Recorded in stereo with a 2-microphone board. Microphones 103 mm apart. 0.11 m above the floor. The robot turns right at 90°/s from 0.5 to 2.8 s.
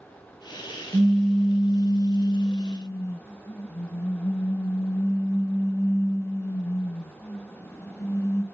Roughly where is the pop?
Ahead.